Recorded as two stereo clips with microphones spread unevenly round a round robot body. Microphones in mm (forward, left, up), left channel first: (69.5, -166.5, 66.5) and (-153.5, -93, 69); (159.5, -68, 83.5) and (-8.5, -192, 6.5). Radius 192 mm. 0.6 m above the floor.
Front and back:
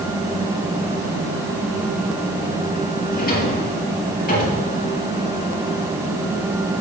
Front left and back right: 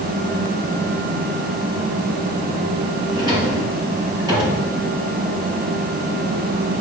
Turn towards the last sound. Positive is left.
turn(degrees=-70)